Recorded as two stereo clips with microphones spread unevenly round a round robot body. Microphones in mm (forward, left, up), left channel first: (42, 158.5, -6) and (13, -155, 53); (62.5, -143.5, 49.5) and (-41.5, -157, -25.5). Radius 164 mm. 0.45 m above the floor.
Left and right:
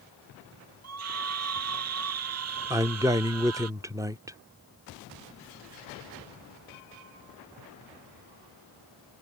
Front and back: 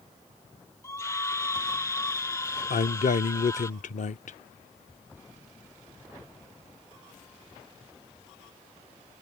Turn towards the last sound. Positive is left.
turn(degrees=-5)